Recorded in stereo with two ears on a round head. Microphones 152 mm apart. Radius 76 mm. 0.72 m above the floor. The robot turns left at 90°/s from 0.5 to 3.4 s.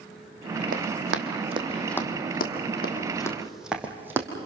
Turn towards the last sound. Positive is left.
turn(degrees=-15)  # may be behind; listen again after turning